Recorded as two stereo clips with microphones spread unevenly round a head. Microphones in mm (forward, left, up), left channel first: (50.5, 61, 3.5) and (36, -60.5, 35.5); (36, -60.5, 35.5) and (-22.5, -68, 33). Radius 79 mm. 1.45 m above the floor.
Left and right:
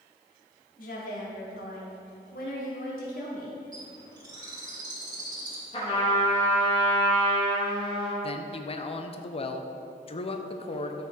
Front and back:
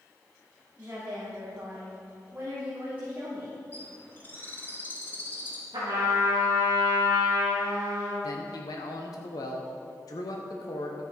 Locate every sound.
0.8 s a woman speaking: 110° left, 3 m
3.7 s a bird: 45° right, 2.5 m
5.7 s a trumpet: 140° left, 2 m
8.2 s a man speaking: 45° left, 0.8 m